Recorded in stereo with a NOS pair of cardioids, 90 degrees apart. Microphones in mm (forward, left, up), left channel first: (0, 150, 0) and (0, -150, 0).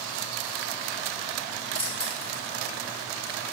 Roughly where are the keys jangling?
Ahead.